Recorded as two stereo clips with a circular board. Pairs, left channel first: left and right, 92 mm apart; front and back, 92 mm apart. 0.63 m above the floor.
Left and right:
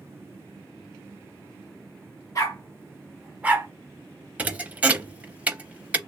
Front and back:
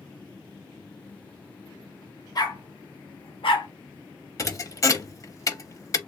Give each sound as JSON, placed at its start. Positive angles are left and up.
{"t": 2.4, "sound": "a dog barking", "azimuth_deg": 40, "distance_m": 1.1}
{"t": 4.4, "sound": "a thud", "azimuth_deg": -25, "distance_m": 0.5}